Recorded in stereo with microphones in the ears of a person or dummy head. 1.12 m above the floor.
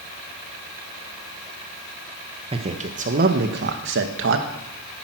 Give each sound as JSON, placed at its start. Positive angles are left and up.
{"t": 2.5, "sound": "a man speaking", "side_deg": -25, "distance_m": 1.3}